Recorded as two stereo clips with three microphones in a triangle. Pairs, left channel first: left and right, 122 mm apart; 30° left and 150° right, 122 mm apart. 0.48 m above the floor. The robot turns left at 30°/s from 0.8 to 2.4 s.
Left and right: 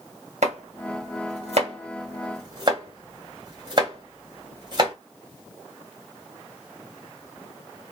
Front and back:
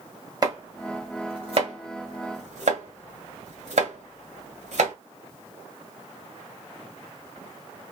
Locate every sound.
0.4 s chopping: 95° right, 1.9 m; by 4.9 s 140° right, 1.9 m